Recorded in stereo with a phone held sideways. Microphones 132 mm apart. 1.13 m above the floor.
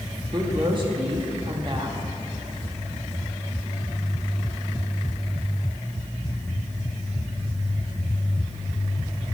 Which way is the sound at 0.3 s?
40° right (ahead or behind).